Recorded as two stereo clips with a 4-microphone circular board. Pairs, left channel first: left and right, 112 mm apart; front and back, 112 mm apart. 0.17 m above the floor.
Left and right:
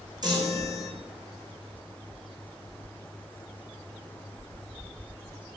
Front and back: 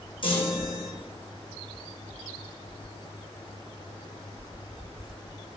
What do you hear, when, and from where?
0.2 s a chime: 40° right, 1.8 m